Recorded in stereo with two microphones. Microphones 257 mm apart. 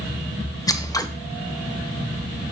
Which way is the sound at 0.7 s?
15° left (ahead or behind).